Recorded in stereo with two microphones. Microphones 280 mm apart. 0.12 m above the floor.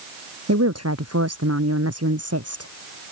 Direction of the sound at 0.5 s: 70° right (ahead or behind).